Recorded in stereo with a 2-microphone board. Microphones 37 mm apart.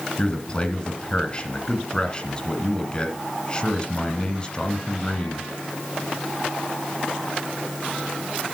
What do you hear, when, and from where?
0.2 s a man speaking: 20° left (ahead or behind), 1.6 m